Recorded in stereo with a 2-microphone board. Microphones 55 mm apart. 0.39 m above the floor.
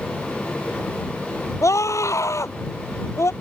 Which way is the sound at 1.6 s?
70° left (ahead or behind).